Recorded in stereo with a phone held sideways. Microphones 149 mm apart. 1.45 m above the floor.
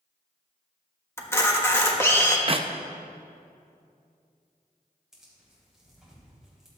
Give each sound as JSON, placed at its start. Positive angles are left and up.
{"t": 1.2, "sound": "a camera shutter", "side_deg": 15, "distance_m": 1.1}
{"t": 2.5, "sound": "a clap", "side_deg": -40, "distance_m": 0.5}
{"t": 5.1, "sound": "tearing paper", "side_deg": -5, "distance_m": 3.5}